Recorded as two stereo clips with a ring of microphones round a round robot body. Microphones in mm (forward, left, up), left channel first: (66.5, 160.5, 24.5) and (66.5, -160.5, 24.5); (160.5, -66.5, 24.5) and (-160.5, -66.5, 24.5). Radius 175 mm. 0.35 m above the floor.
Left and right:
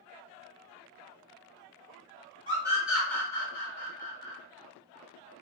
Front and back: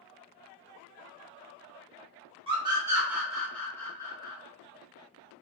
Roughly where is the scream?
Behind right.